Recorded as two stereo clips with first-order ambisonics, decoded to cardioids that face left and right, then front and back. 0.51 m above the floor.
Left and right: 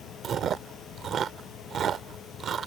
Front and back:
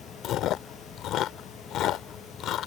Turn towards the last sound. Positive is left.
turn(degrees=-35)